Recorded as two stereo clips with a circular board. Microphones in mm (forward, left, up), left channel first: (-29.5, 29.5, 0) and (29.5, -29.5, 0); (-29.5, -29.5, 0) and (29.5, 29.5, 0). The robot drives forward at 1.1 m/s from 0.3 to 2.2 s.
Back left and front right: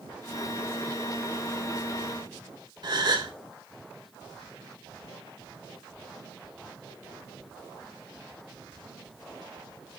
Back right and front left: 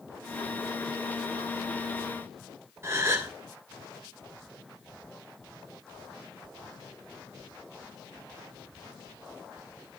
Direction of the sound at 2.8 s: 15° right.